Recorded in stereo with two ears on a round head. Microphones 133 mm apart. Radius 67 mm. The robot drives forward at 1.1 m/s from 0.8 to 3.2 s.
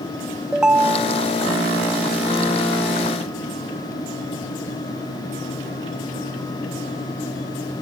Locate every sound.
0.5 s a ringtone: 5° right (ahead or behind), 0.5 m